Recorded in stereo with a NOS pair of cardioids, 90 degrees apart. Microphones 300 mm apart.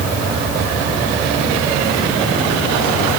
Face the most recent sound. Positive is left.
No sound to turn to.